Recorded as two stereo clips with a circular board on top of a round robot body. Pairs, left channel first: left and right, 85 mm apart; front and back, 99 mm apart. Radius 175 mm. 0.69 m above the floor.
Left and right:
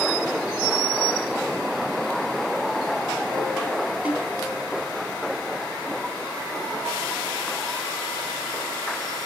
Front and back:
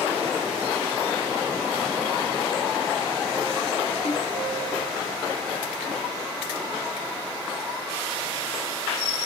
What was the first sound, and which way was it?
A snare drum, 15° right.